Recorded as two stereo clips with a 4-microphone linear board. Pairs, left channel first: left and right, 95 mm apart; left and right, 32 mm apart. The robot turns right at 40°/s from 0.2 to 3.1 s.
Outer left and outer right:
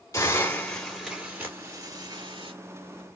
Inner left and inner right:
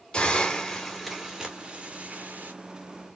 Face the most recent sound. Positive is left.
turn(degrees=-95)